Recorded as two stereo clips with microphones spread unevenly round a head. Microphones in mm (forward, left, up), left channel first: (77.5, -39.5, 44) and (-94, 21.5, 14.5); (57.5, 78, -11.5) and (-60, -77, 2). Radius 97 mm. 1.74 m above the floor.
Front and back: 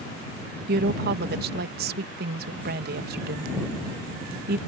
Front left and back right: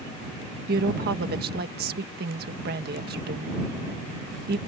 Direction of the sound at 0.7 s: 165° right.